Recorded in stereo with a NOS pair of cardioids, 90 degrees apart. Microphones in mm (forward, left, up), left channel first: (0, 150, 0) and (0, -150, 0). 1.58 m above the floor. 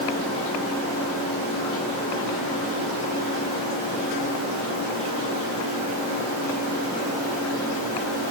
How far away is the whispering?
No whispering in this recording.